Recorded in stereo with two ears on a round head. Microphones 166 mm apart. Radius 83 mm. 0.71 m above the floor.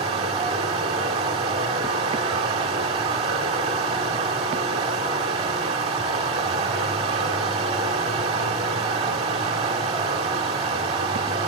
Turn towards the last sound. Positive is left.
turn(degrees=-30)  # may be behind; listen again after turning